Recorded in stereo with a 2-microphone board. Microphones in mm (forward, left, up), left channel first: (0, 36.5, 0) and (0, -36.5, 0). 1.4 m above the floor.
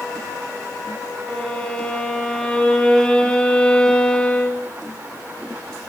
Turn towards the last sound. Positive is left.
turn(degrees=15)  # may be behind; listen again after turning